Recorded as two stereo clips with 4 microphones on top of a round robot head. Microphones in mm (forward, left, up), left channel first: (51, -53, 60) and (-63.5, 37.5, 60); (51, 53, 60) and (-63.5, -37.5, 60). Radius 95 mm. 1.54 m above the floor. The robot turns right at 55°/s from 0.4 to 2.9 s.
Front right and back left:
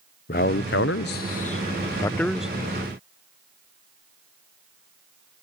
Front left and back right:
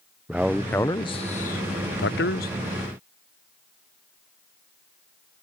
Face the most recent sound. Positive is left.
turn(degrees=80)